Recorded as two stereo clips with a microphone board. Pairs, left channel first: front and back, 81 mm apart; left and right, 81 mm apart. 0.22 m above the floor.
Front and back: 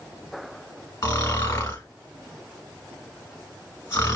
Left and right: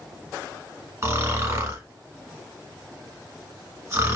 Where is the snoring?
40° right, 1.0 m.